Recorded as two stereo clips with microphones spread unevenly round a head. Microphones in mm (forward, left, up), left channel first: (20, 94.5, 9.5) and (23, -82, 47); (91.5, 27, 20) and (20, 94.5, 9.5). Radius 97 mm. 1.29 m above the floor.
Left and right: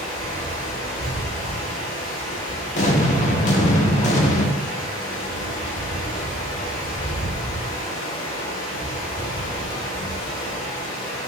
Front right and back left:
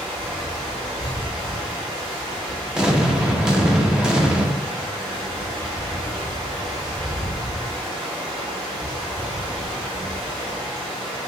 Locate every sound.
0.0 s running water: 120° left, 2 m
2.8 s an explosion: 50° left, 0.6 m